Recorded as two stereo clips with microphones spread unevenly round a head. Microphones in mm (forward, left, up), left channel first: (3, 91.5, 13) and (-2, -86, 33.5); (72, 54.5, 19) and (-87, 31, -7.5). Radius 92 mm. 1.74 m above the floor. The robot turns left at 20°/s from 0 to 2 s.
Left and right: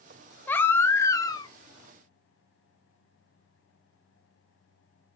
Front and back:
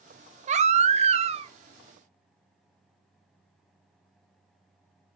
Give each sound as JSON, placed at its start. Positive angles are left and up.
{"t": 0.5, "sound": "a baby crying", "azimuth_deg": 170, "distance_m": 0.7}